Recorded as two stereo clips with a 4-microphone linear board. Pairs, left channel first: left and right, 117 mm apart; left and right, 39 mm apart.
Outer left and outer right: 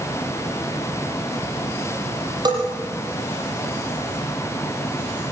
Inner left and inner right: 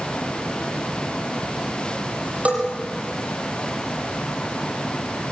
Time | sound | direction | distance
2.5 | a bell | 35° right (ahead or behind) | 8 m